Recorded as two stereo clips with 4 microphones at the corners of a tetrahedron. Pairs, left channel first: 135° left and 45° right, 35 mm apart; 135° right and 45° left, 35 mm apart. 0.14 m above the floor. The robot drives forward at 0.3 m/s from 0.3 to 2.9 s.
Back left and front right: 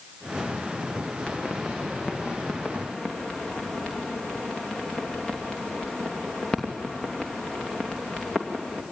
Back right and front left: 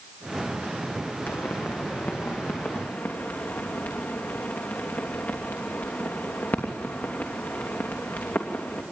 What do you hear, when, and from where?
1.3 s a pop: 155° right, 2.5 m; by 8.8 s 160° right, 3 m